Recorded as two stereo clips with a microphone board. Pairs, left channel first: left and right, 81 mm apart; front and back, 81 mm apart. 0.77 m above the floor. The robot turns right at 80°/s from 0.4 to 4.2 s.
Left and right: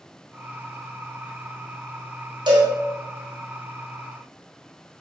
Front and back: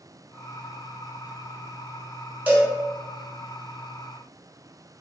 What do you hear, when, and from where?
2.5 s a cowbell: 110° right, 1.1 m; by 2.7 s 90° right, 1.1 m